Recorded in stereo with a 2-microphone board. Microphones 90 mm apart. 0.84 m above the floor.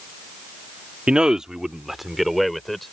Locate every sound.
1.1 s a man speaking: 10° right (ahead or behind); by 2.9 s centre (ahead or behind)